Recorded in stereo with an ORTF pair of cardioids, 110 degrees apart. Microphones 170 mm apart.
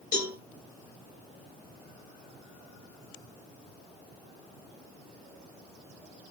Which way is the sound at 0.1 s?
65° left.